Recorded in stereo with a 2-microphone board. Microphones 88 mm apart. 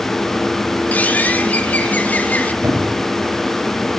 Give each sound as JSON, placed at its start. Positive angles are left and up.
{"t": 0.9, "sound": "a bird", "side_deg": 20, "distance_m": 1.0}
{"t": 2.6, "sound": "a squeak", "side_deg": -30, "distance_m": 3.5}